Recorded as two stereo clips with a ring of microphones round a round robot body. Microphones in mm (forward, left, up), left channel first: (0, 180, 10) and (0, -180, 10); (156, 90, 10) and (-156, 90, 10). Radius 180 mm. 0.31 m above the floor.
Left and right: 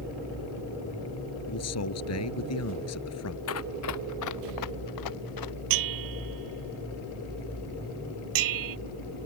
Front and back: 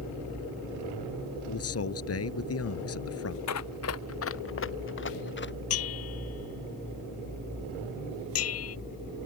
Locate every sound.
1.5 s a man speaking: 40° left
3.5 s running footsteps: 35° left; by 5.5 s 55° left
5.7 s a bell: 55° right